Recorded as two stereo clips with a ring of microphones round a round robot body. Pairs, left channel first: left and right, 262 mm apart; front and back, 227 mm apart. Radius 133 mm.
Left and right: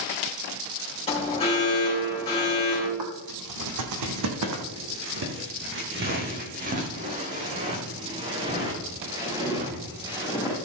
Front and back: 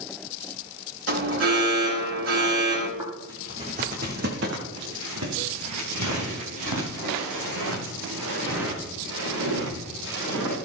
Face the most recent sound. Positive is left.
turn(degrees=-170)